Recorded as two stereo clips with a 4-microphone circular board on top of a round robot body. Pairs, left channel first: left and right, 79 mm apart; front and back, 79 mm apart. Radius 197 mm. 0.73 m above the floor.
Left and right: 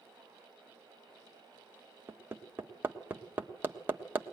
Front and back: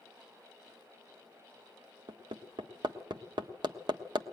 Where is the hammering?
155° right, 1.4 m.